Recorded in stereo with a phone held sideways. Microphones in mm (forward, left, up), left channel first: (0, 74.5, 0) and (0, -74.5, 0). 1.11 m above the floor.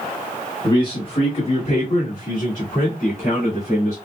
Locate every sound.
0.6 s a man speaking: 30° left (ahead or behind), 1.3 m; by 4.0 s 70° left (ahead or behind), 2.5 m